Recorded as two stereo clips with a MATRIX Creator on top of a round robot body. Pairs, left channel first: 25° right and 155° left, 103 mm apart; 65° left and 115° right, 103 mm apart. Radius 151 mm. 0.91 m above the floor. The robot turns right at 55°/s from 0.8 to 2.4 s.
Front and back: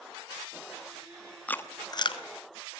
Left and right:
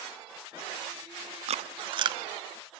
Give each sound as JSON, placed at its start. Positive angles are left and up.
{"t": 1.5, "sound": "chewing", "azimuth_deg": -100, "distance_m": 1.0}